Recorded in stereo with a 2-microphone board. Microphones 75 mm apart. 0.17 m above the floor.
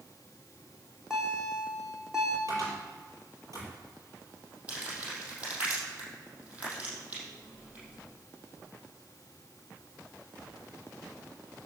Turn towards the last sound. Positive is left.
turn(degrees=-20)  # may be behind; listen again after turning